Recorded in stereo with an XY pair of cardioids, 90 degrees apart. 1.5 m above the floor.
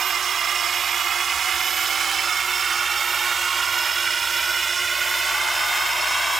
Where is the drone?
60° right; by 6.4 s 30° right.